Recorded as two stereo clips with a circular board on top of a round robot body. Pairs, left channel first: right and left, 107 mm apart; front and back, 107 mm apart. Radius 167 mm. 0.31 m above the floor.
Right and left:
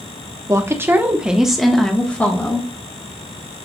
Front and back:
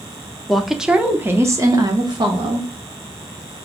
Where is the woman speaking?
85° left, 1.1 m; by 2.7 s 155° right, 1.5 m.